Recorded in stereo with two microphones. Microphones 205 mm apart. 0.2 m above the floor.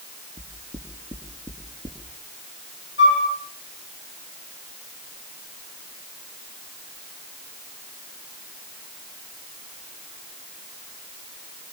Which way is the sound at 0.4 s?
20° left (ahead or behind).